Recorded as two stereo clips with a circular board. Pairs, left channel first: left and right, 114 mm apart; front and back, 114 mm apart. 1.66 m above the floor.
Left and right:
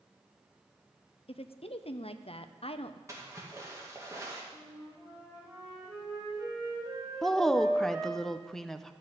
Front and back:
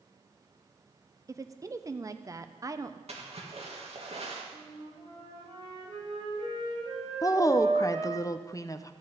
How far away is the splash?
About 2 m.